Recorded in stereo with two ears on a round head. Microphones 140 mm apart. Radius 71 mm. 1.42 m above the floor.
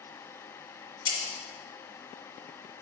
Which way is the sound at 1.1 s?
35° left (ahead or behind).